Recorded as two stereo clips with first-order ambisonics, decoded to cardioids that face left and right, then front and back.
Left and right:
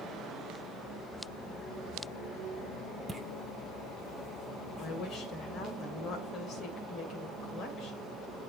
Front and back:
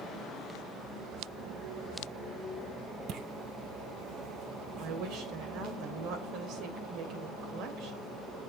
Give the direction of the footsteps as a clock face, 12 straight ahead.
6 o'clock.